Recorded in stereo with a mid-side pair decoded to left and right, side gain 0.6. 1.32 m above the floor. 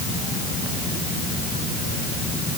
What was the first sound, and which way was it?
Only background noise.